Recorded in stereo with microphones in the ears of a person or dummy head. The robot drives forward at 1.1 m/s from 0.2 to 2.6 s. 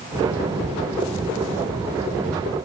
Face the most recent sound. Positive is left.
No sound to turn to.